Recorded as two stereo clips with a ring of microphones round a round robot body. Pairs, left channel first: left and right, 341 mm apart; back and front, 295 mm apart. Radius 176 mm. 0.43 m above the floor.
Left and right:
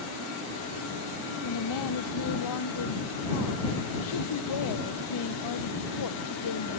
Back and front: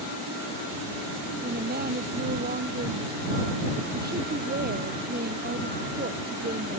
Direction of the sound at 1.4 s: 60° left.